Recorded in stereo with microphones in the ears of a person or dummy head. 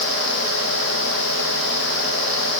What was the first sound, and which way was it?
Only background noise.